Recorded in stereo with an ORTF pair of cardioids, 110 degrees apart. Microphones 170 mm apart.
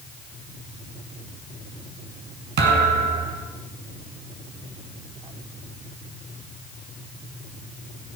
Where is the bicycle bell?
I don't hear a bicycle bell.